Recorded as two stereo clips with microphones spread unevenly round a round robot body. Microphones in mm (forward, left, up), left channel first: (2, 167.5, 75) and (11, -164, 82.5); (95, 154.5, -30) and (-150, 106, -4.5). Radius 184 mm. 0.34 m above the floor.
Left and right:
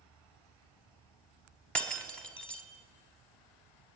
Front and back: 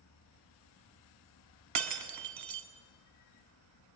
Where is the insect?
10° left, 1.6 m.